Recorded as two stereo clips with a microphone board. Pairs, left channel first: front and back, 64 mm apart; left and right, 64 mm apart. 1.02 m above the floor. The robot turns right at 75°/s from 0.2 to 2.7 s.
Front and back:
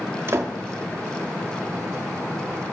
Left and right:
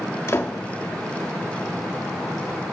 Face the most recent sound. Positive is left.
turn(degrees=-45)